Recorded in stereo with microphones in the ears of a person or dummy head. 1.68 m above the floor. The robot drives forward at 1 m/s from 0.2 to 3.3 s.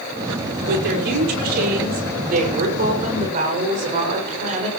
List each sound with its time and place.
0.7 s a woman speaking: 60° right (ahead or behind), 5.5 m; by 4.7 s 45° right (ahead or behind), 7 m